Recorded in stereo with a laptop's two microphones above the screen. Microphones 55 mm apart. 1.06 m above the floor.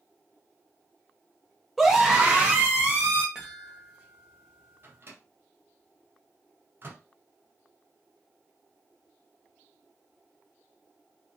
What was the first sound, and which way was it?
A scream, centre (ahead or behind).